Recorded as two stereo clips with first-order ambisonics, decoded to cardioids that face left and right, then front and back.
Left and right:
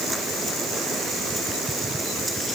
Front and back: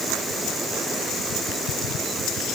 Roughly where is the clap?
I don't hear a clap.